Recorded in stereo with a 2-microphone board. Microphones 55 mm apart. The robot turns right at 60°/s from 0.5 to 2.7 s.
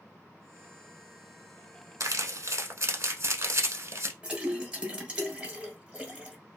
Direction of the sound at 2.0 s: 85° right.